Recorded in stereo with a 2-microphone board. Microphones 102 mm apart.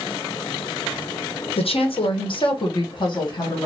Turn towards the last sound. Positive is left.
turn(degrees=45)  # may be behind; listen again after turning